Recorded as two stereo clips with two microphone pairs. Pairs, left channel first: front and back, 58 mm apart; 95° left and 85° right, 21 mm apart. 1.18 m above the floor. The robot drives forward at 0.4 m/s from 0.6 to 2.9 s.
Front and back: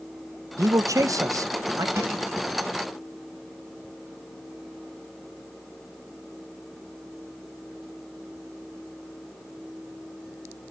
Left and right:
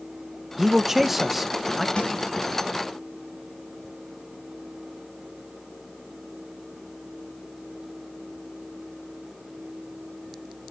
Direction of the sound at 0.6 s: 160° right.